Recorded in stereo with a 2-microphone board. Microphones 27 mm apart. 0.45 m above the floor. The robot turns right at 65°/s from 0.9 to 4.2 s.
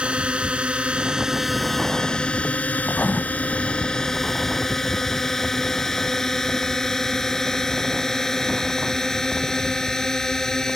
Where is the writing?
80° left; by 3.2 s 60° left (ahead or behind).